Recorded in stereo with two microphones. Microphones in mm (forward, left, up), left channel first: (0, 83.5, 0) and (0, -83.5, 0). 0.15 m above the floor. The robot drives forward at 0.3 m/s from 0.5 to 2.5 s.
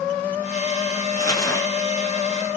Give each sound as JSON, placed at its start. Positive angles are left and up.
{"t": 1.1, "sound": "crumpling", "side_deg": 20, "distance_m": 2.0}